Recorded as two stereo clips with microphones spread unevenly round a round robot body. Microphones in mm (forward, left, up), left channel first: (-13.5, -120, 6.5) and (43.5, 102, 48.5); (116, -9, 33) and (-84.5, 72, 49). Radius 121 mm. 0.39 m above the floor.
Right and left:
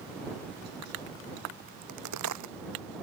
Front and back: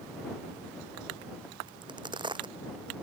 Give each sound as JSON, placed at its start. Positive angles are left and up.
{"t": 1.7, "sound": "a crack", "azimuth_deg": 90}